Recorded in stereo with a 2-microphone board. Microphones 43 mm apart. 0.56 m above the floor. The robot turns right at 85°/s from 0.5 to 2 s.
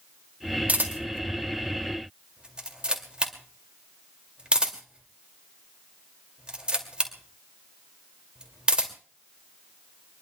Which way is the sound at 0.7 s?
35° right (ahead or behind).